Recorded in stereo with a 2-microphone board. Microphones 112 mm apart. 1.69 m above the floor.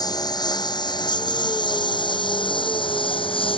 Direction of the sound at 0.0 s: 35° left (ahead or behind).